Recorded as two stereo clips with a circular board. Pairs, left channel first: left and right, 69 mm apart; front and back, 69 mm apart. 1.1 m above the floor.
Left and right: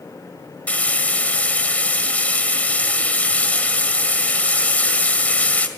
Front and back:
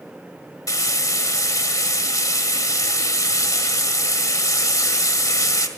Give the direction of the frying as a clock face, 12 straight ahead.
11 o'clock.